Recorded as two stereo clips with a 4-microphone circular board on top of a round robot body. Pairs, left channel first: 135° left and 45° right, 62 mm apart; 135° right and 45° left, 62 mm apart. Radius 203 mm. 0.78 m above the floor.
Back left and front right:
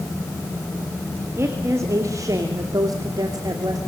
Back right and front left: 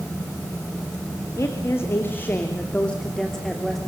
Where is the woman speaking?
90° right, 3 m; by 3.8 s 45° right, 3 m.